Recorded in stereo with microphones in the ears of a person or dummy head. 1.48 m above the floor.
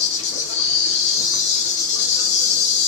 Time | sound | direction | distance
0.0 | an insect | 45° left (ahead or behind) | 0.7 m